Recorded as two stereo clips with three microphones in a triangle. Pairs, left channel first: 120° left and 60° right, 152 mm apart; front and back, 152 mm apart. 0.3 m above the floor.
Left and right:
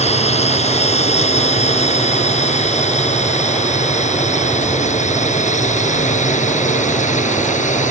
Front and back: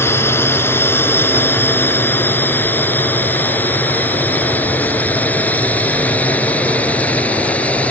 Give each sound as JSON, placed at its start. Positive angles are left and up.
{"t": 0.0, "sound": "a drone", "azimuth_deg": 75}